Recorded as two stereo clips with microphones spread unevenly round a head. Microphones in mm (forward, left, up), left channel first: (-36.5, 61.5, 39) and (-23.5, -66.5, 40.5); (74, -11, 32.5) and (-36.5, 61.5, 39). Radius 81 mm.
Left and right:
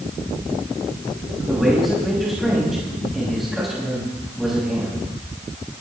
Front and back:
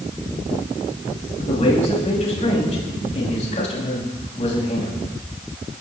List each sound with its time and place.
1.4 s a man speaking: 5° left, 7 m